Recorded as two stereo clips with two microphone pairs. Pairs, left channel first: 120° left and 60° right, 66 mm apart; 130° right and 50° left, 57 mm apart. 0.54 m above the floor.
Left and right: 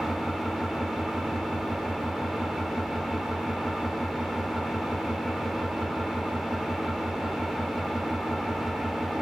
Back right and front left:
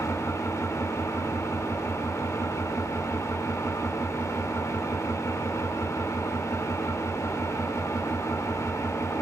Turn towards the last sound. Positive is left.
turn(degrees=-145)